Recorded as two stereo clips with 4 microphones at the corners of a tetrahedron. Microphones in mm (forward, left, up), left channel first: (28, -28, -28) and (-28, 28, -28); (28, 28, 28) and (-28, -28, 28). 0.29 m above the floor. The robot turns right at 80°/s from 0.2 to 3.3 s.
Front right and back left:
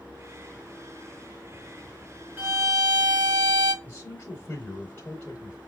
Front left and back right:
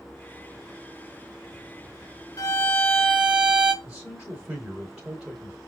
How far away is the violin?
About 0.8 m.